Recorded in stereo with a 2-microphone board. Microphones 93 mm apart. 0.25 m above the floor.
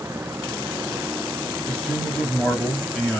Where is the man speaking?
5° left (ahead or behind), 1.0 m.